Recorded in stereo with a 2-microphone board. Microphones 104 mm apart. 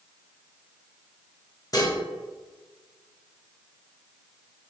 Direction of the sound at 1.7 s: 35° left (ahead or behind).